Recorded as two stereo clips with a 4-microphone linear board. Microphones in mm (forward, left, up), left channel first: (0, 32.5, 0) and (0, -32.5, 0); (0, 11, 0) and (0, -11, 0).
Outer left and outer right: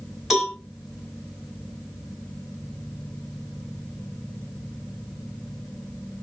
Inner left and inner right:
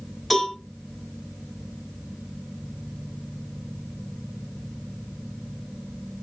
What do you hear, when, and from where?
0.3 s a cowbell: 5° right (ahead or behind), 3.5 m